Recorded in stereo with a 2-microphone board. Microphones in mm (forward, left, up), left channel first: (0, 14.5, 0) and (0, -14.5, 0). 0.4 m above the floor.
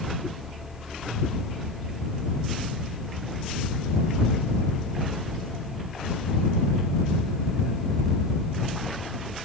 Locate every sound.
Only background noise.